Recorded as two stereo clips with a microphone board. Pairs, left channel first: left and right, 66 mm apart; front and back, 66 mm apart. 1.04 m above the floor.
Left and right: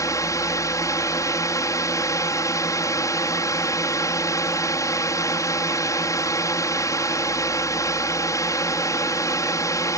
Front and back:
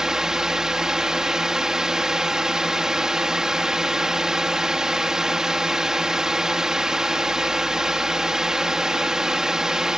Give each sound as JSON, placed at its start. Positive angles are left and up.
{"t": 0.0, "sound": "a drone", "azimuth_deg": 100}